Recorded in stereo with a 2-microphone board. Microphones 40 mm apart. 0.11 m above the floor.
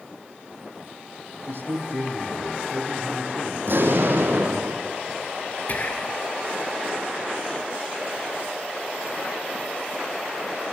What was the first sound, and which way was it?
A man speaking, 65° right (ahead or behind).